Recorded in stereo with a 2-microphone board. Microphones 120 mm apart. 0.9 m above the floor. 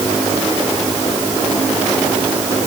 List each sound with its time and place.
Only background noise.